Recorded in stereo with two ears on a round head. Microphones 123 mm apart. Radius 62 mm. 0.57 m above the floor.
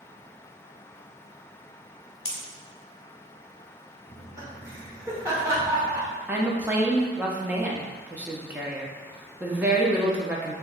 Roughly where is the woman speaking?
Centre.